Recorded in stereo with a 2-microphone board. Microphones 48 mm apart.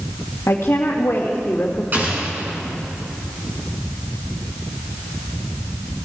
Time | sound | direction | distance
0.5 | a woman speaking | 65° left (ahead or behind) | 1.7 m
1.9 | an explosion | 40° right (ahead or behind) | 3.5 m